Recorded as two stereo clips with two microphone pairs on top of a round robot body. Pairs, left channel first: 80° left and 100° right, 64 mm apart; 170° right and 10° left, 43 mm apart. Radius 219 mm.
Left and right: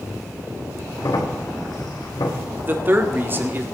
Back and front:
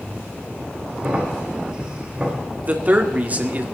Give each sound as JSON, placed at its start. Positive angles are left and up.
{"t": 1.0, "sound": "a crack", "azimuth_deg": 80, "distance_m": 3.0}
{"t": 2.6, "sound": "a man speaking", "azimuth_deg": -40, "distance_m": 2.0}